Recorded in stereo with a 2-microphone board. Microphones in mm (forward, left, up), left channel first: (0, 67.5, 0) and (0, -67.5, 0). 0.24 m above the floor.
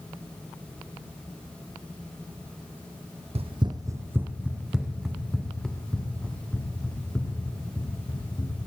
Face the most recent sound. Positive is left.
turn(degrees=10)  # may be behind; listen again after turning